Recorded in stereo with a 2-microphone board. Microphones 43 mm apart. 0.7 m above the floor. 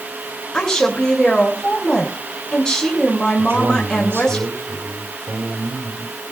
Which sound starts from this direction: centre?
A woman speaking, at 0.5 s.